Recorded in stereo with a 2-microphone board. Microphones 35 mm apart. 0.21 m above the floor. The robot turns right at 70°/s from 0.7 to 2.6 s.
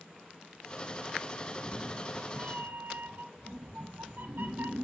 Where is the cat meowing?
145° right, 2.0 m; by 4.9 s 65° right, 2.0 m.